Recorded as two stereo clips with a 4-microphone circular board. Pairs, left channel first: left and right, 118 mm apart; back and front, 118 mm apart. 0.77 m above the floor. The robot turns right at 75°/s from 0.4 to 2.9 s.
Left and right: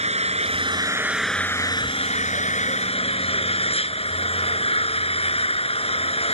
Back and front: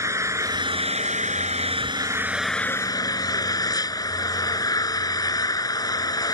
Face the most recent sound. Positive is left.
turn(degrees=125)